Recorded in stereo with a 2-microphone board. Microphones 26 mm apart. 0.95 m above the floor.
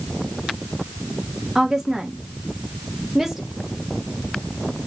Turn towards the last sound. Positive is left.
turn(degrees=-15)  # may be behind; listen again after turning